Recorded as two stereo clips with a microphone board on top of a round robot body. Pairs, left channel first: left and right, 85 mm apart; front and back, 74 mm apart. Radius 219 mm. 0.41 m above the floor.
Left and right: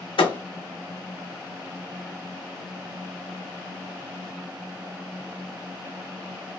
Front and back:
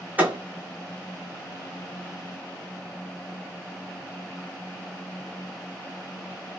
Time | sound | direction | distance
0.2 | a thud | 110° left | 0.9 m